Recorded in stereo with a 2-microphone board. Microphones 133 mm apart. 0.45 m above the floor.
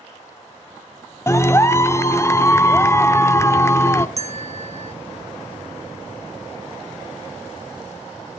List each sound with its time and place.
1.3 s a clap: 20° left (ahead or behind), 0.8 m
4.2 s a bell: 55° right (ahead or behind), 0.6 m